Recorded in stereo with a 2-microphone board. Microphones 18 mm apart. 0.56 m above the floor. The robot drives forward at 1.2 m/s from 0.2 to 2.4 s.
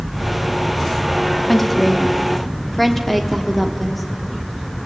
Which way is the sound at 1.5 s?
15° left (ahead or behind).